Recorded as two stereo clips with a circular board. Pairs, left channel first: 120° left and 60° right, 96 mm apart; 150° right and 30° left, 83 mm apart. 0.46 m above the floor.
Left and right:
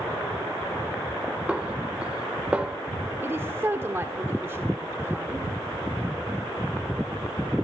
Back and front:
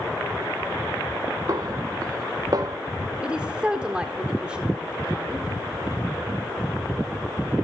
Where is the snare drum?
15° left, 1.1 m.